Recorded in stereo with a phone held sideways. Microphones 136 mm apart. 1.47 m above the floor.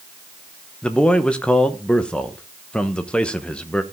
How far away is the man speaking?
About 1.1 m.